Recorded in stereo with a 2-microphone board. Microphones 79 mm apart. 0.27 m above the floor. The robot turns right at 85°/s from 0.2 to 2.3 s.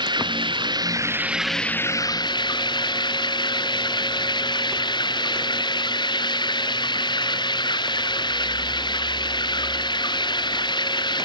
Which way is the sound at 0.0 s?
110° right.